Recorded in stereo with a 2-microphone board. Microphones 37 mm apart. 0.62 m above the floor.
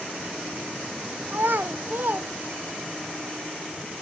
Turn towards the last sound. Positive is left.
turn(degrees=-60)  # may be behind; listen again after turning